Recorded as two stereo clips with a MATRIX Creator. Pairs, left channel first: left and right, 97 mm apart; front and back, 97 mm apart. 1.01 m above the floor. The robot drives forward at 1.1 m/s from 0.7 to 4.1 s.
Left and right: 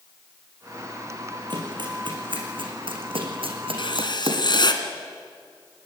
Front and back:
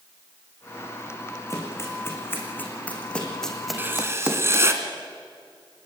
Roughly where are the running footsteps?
Ahead right.